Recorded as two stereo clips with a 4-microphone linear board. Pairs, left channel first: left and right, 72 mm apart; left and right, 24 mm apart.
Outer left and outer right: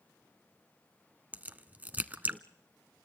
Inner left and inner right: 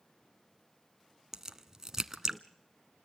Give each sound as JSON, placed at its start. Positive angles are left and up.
{"t": 1.3, "sound": "a crack", "side_deg": -25, "distance_m": 0.9}